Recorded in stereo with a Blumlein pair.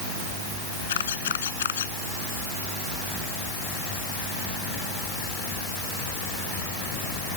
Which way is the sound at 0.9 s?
60° left.